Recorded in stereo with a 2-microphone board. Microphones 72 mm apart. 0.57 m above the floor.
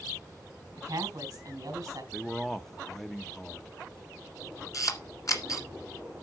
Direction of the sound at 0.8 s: 50° right (ahead or behind).